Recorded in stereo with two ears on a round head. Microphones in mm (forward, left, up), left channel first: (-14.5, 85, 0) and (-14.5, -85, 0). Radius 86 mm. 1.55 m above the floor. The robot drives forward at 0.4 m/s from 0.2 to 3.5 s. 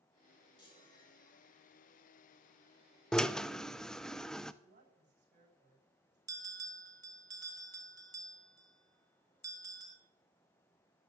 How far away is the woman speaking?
About 9 m.